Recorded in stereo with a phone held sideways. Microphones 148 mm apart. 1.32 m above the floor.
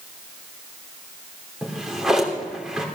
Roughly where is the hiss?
No hiss in this recording.